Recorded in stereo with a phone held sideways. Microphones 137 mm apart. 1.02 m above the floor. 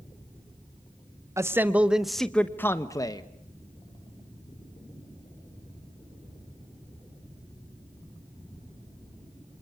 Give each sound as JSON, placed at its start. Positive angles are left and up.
{"t": 1.4, "sound": "a man speaking", "side_deg": -20, "distance_m": 1.2}